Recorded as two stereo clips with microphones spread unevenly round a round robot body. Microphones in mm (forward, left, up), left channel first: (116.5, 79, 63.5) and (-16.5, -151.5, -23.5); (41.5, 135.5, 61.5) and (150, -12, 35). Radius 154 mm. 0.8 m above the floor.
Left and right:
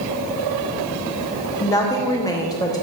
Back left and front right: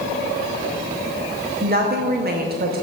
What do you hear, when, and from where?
1.6 s a woman speaking: 25° right, 0.8 m